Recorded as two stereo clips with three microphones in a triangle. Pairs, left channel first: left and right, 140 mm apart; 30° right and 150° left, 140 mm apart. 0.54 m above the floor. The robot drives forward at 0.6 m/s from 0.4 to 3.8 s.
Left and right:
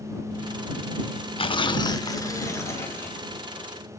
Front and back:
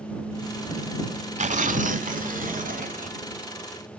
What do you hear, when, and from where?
1.4 s tearing paper: 130° left, 0.7 m; by 3.3 s 165° left, 1.6 m